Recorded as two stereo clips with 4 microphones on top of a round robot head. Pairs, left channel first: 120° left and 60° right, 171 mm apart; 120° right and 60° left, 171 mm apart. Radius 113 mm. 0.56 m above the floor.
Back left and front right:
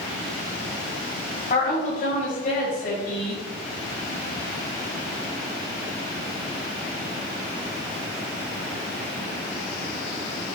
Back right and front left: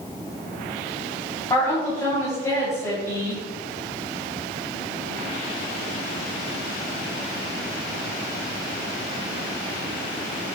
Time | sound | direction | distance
1.5 | a woman speaking | 165° left | 3.5 m